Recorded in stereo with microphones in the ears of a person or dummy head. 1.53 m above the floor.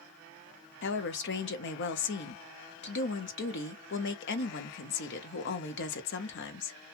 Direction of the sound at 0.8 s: 55° left (ahead or behind).